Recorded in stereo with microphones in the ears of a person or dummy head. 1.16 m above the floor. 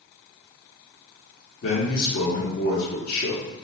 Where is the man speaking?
55° left (ahead or behind), 1.3 m.